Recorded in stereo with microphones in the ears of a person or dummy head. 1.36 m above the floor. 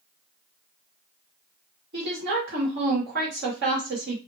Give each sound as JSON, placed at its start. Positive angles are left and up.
{"t": 1.9, "sound": "a woman speaking", "side_deg": -65, "distance_m": 1.3}